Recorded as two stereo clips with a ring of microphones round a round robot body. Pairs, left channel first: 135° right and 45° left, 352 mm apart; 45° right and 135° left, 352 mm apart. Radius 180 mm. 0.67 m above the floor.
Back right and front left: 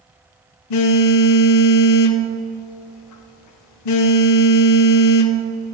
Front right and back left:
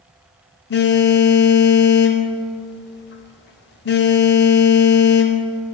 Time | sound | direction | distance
0.7 | a phone buzzing | 100° right | 0.5 m